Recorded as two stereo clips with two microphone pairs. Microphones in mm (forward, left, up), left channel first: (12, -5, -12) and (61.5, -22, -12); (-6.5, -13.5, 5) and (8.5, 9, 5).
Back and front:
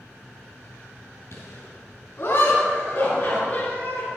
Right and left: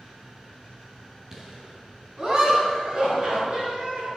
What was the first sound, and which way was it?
Laughter, 125° left.